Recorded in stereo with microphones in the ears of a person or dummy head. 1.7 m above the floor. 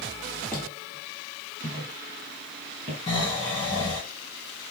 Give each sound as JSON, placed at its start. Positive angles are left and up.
{"t": 0.5, "sound": "footsteps", "side_deg": 10, "distance_m": 1.8}
{"t": 3.1, "sound": "snoring", "side_deg": 20, "distance_m": 1.1}